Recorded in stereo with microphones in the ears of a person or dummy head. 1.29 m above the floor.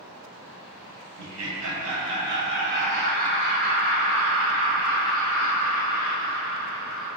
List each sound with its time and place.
1.2 s laughter: 85° right, 1.2 m; by 7.1 s 5° right (ahead or behind), 3 m